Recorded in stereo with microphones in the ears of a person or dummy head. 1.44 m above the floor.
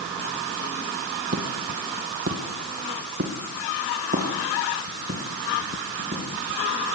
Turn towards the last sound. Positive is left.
turn(degrees=-35)  # may be behind; listen again after turning